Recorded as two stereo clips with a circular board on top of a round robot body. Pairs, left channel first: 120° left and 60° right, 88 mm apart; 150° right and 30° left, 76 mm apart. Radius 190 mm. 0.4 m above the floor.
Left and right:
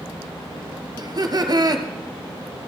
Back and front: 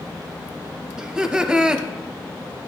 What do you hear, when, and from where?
1.0 s laughter: 45° right, 1.2 m